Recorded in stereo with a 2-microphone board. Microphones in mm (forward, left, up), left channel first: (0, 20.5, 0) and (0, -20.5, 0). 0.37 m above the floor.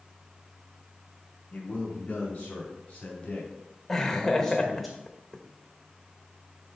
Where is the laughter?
5° left (ahead or behind), 0.9 m.